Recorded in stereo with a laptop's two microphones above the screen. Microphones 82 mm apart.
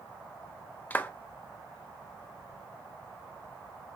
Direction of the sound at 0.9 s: 20° left (ahead or behind).